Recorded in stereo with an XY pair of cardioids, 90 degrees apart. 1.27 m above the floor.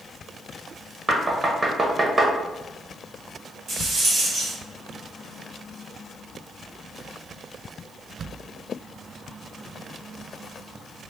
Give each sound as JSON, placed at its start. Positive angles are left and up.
{"t": 1.1, "sound": "knocking", "azimuth_deg": -30, "distance_m": 1.0}
{"t": 3.7, "sound": "a rattle", "azimuth_deg": -65, "distance_m": 1.7}